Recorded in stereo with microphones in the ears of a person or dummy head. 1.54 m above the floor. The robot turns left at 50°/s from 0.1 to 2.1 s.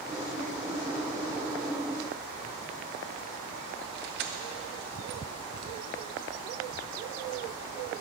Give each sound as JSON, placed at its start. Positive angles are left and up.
{"t": 4.0, "sound": "keys jangling", "side_deg": -45, "distance_m": 0.7}